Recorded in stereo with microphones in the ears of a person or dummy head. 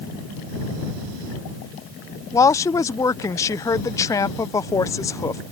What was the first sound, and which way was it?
A woman speaking, 20° left (ahead or behind).